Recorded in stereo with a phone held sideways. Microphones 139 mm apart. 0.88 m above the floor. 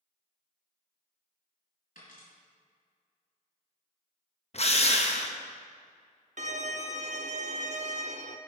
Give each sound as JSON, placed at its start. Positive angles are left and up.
{"t": 1.9, "sound": "a dropped coin", "side_deg": 80, "distance_m": 3.5}
{"t": 4.5, "sound": "a drill", "side_deg": 50, "distance_m": 0.9}
{"t": 6.4, "sound": "a violin", "side_deg": -60, "distance_m": 0.6}